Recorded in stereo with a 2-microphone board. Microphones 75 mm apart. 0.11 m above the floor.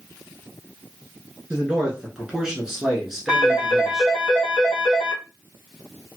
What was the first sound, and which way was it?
A man speaking, 10° right (ahead or behind).